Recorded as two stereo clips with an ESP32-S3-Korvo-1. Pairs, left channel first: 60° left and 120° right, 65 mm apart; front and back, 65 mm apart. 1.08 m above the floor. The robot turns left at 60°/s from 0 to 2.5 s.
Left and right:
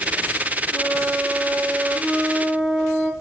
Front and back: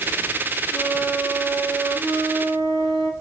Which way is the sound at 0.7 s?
90° right.